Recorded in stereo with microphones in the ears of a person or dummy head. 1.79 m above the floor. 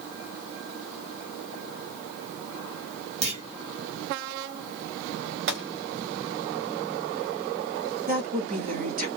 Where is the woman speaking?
45° right (ahead or behind), 1.0 m.